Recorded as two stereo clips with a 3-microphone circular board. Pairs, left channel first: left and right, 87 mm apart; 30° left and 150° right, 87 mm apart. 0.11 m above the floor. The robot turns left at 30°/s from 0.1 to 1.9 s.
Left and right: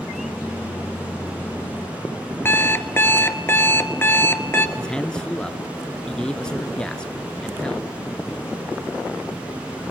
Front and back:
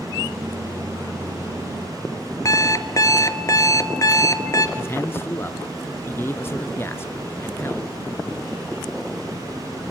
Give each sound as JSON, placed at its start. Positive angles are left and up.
{"t": 2.5, "sound": "an alarm clock", "azimuth_deg": 40, "distance_m": 1.0}
{"t": 4.8, "sound": "a man speaking", "azimuth_deg": 20, "distance_m": 1.2}